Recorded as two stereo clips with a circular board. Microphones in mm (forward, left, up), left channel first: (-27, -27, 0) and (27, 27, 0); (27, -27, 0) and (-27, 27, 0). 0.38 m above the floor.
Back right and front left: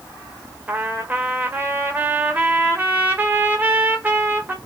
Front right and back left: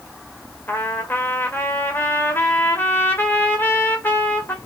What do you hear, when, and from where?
0.7 s a trumpet: 5° right, 1.6 m